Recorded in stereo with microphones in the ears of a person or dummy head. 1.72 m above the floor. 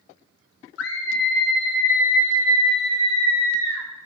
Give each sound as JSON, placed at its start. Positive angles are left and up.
{"t": 0.8, "sound": "a scream", "side_deg": 70, "distance_m": 1.8}